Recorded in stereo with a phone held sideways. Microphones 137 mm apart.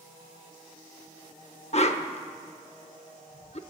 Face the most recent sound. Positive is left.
turn(degrees=45)  # may be behind; listen again after turning